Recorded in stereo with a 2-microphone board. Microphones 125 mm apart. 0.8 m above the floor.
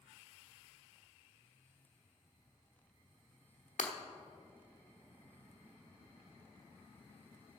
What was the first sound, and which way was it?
Breaking glass, 80° left.